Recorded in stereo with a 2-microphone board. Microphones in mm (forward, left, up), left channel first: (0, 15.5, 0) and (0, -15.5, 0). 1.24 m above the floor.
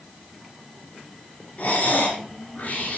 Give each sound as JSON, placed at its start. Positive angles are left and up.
{"t": 1.6, "sound": "breathing", "side_deg": 70, "distance_m": 5.5}